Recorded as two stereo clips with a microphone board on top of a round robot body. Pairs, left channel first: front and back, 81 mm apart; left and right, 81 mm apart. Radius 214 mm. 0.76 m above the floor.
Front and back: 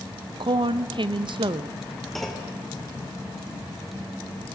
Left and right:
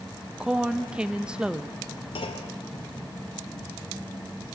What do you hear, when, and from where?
0.4 s a woman speaking: 170° right, 0.9 m
2.1 s a clunk: 90° left, 1.6 m